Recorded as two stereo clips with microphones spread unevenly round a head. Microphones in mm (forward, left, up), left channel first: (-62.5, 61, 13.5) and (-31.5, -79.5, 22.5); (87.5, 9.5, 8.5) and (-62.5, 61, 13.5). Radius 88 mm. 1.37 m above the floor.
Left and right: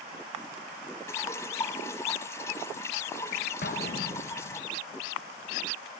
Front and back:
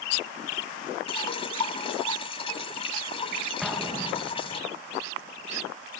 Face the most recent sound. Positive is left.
turn(degrees=75)